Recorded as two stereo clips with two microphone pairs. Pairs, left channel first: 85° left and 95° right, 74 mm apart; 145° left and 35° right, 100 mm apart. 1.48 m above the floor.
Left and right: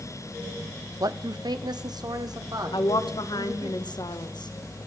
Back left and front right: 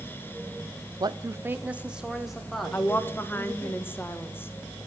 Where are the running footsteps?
No running footsteps in this recording.